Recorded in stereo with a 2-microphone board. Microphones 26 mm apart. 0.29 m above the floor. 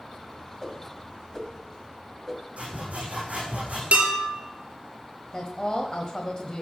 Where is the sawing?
65° right (ahead or behind), 6.5 m.